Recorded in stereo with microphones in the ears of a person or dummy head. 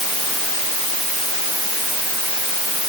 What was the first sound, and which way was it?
Only background noise.